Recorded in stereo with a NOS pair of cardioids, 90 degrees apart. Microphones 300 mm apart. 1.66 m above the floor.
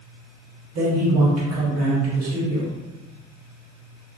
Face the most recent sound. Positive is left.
turn(degrees=-55)